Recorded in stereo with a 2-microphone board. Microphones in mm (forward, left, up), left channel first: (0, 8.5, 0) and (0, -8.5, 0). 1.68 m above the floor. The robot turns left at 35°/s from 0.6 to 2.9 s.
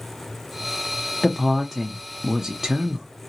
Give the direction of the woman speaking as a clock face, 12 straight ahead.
12 o'clock.